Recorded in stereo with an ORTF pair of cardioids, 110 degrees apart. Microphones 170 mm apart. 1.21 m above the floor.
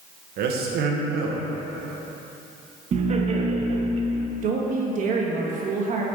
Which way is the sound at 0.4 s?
70° right.